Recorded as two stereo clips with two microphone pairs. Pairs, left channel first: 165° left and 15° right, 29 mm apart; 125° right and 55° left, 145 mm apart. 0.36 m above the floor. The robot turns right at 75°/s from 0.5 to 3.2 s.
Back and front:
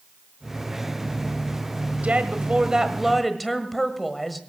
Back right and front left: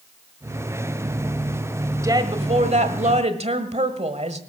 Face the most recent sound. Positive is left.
turn(degrees=80)